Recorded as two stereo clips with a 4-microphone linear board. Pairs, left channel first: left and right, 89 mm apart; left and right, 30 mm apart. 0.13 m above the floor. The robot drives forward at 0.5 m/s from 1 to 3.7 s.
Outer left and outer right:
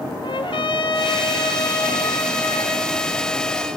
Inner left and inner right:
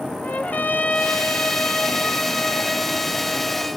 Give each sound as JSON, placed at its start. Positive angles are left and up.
{"t": 0.2, "sound": "a trumpet", "side_deg": 70, "distance_m": 0.7}